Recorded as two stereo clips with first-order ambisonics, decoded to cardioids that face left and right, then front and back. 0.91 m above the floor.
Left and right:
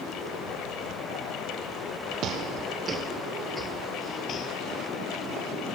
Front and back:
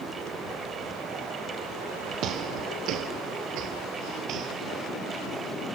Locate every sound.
2.2 s footsteps: 135° right, 1.5 m; by 4.5 s 135° left, 1.5 m